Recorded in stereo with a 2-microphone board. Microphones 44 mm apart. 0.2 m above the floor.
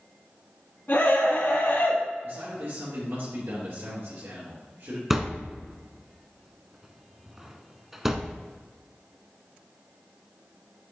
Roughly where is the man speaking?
Right.